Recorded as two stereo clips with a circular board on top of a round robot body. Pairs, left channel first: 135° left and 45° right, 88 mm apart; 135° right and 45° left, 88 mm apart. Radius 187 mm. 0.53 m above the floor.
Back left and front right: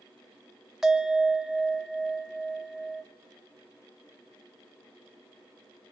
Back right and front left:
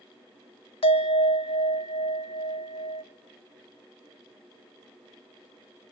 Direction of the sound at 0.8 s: 130° right.